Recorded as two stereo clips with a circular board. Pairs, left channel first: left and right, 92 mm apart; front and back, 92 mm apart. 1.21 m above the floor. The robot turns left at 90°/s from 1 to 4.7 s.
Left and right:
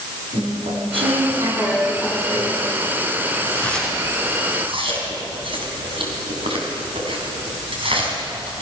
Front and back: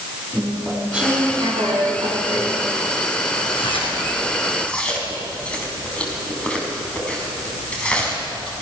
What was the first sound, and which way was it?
Chewing, 105° right.